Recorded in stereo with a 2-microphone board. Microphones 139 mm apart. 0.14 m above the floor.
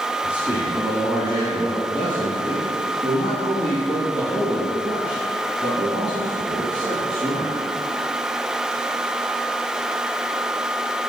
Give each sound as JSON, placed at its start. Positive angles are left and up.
{"t": 0.2, "sound": "a man speaking", "side_deg": -10, "distance_m": 1.4}